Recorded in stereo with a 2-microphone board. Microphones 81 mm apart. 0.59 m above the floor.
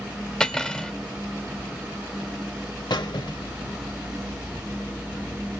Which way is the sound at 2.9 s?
70° left (ahead or behind).